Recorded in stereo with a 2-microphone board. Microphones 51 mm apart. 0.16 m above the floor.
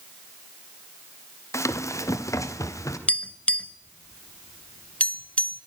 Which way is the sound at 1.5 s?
65° left (ahead or behind).